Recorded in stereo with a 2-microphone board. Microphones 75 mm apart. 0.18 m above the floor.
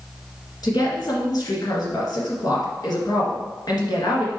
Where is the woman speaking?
60° left (ahead or behind), 2 m.